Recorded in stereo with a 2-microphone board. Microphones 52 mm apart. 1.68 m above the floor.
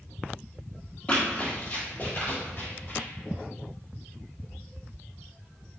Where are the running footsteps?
25° left (ahead or behind), 1.9 m; by 3.1 s 55° left (ahead or behind), 3.5 m.